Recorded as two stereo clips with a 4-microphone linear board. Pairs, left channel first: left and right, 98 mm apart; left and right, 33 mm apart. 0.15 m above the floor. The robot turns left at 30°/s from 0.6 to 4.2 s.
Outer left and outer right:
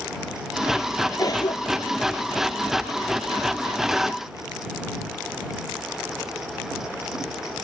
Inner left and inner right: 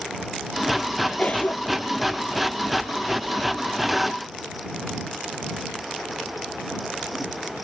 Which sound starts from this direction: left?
A cough, at 1.2 s.